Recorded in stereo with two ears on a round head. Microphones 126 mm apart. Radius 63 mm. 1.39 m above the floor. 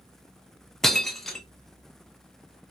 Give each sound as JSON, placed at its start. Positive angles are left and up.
{"t": 0.8, "sound": "breaking glass", "side_deg": 0, "distance_m": 0.7}